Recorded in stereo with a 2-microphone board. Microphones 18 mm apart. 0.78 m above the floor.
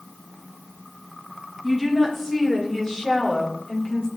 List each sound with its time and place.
1.6 s a woman speaking: 10° left (ahead or behind), 3 m; by 4.1 s 55° left (ahead or behind), 2.5 m